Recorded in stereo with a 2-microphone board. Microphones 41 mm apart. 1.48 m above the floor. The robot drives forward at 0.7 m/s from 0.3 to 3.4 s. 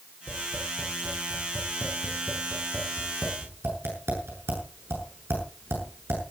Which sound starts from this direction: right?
Tapping, at 0.3 s.